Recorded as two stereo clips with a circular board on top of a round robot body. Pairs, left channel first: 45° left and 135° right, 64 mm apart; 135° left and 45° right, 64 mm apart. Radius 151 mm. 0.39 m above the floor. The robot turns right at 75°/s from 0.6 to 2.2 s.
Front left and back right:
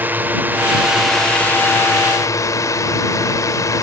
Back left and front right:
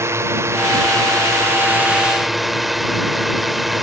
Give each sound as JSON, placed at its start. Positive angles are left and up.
{"t": 0.0, "sound": "a drone", "azimuth_deg": -80}